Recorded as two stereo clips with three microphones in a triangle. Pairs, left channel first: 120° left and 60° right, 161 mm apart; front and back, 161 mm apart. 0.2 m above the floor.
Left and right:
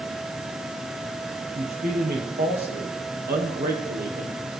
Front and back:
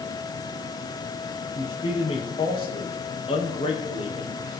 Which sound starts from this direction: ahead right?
A man speaking, at 1.6 s.